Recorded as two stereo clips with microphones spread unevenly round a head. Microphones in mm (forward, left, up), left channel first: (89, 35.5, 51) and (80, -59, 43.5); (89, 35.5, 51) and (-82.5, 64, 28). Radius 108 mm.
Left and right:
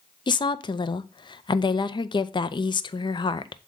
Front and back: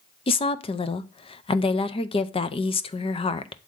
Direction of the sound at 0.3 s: 50° left.